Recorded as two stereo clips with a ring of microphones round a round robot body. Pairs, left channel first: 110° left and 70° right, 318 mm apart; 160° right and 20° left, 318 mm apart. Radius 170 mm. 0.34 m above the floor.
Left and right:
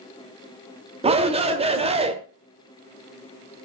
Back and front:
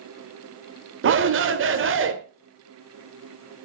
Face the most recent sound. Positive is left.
turn(degrees=-5)